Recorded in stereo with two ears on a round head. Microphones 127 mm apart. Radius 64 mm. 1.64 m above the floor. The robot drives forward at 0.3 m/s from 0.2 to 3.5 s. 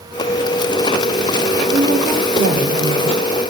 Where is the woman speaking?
80° right, 4 m; by 3.5 s 85° right, 4 m.